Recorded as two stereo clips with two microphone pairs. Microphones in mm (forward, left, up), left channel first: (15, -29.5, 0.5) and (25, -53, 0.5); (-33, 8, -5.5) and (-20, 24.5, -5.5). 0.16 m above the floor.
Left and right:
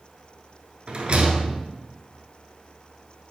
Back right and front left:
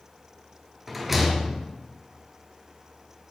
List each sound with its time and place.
0.9 s a rattle: 30° right, 0.6 m